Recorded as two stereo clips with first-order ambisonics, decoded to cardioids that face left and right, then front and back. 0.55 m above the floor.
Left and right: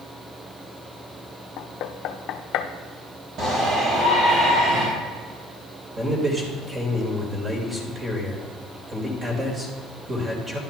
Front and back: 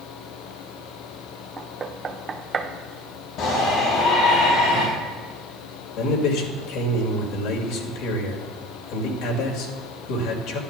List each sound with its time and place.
1.6 s knocking: 115° left, 0.7 m
3.4 s a shout: 40° right, 3 m
6.0 s a man speaking: 15° right, 2.5 m